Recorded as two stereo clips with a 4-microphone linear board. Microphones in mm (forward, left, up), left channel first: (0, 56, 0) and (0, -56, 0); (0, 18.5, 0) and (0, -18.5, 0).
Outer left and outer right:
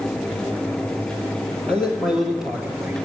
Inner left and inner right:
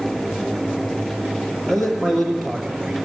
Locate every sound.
1.7 s a man speaking: 10° left (ahead or behind), 3 m; by 2.9 s 15° right (ahead or behind), 2.5 m